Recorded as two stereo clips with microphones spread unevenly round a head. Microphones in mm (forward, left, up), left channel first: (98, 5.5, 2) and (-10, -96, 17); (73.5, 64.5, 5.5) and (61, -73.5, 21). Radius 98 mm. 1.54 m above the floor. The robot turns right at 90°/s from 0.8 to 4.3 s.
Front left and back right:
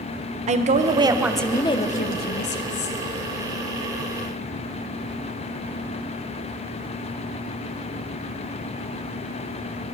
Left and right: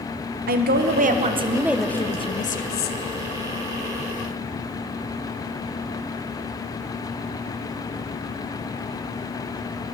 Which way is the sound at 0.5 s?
95° right.